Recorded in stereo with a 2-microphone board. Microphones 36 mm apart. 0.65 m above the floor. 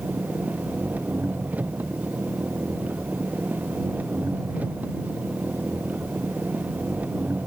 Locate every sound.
0.0 s an engine running: 45° right (ahead or behind)